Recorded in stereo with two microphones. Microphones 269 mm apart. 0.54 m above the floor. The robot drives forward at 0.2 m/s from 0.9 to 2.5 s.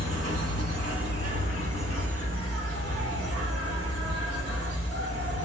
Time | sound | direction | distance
0.0 | an insect | 60° right (ahead or behind) | 1.9 m